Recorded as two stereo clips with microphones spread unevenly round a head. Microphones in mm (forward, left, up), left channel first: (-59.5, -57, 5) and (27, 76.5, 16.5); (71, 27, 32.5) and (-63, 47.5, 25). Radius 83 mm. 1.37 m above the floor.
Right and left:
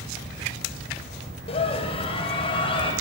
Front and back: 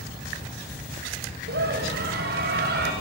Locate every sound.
1.5 s a scream: straight behind, 8.5 m